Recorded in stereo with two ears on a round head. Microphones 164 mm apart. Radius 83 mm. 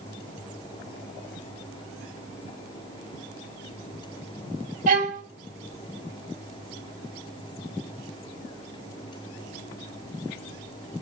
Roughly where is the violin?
Right.